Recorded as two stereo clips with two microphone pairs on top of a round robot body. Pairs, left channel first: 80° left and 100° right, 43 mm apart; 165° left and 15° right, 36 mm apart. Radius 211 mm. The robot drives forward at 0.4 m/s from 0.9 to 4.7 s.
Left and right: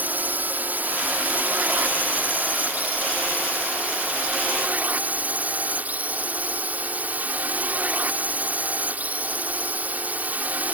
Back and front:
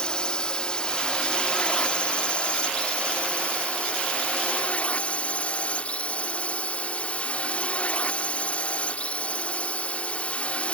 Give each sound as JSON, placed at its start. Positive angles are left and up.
{"t": 0.0, "sound": "a drone", "azimuth_deg": -135}